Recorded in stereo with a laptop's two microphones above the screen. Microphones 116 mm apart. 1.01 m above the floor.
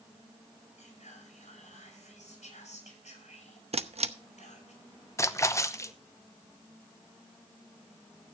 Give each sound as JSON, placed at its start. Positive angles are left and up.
{"t": 0.8, "sound": "whispering", "side_deg": 85, "distance_m": 7.0}
{"t": 3.7, "sound": "a camera shutter", "side_deg": -60, "distance_m": 0.8}
{"t": 5.2, "sound": "a splash", "side_deg": 25, "distance_m": 0.8}